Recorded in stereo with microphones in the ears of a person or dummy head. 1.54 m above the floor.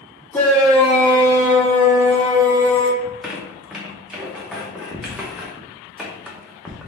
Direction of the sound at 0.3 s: 5° left (ahead or behind).